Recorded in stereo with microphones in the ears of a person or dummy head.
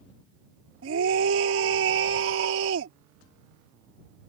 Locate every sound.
0.8 s a scream: 80° right